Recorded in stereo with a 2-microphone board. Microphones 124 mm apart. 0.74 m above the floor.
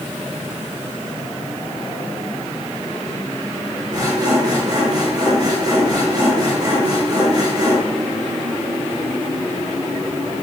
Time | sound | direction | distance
3.9 | sawing | 35° right (ahead or behind) | 5.5 m